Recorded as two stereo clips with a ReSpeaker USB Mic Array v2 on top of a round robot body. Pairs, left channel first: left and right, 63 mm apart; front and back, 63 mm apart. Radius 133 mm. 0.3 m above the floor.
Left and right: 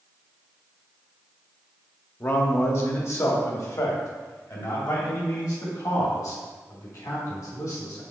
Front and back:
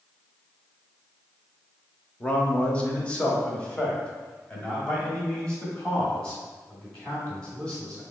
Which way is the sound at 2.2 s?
60° left.